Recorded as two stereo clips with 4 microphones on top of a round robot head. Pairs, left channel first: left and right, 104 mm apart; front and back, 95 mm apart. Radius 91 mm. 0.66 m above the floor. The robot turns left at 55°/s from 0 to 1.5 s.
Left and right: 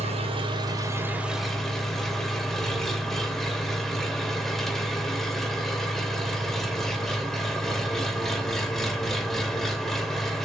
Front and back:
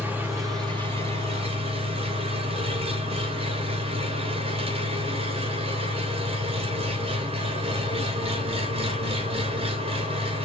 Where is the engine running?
100° right, 3 m; by 10.4 s 175° left, 3 m.